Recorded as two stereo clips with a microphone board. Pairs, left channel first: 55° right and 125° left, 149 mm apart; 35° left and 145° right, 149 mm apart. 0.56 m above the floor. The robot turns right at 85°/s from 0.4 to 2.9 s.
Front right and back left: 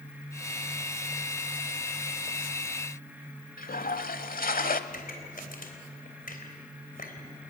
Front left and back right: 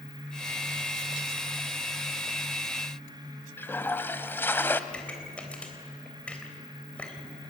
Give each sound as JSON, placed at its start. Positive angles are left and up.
{"t": 3.6, "sound": "a toilet flushing", "azimuth_deg": -40, "distance_m": 1.0}
{"t": 4.9, "sound": "a pop", "azimuth_deg": -45, "distance_m": 3.5}